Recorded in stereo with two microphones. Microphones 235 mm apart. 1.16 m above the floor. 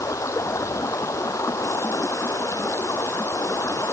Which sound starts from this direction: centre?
Running water, at 0.0 s.